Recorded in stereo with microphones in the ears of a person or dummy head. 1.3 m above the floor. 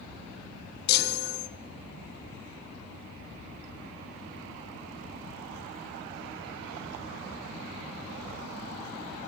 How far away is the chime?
About 2 m.